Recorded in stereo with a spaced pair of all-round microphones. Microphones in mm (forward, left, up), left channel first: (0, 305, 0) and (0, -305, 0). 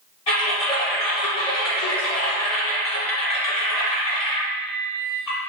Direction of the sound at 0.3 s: 75° left (ahead or behind).